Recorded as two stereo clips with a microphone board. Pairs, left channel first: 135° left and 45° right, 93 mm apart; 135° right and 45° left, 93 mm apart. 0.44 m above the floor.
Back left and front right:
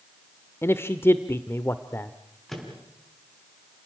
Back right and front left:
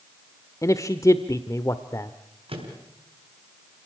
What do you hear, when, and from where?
0.6 s a man speaking: 175° right, 0.9 m
2.5 s a microwave: 50° left, 4.5 m